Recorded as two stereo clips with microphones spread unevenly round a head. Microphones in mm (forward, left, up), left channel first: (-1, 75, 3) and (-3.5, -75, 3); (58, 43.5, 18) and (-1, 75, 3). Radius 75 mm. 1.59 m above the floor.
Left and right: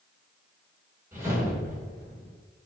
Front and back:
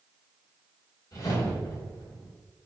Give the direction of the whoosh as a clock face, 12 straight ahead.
1 o'clock.